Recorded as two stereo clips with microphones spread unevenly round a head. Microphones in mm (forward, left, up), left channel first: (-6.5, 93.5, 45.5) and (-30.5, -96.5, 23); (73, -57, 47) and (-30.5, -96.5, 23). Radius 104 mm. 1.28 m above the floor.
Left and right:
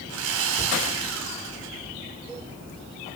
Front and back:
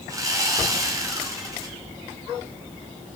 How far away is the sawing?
About 5 m.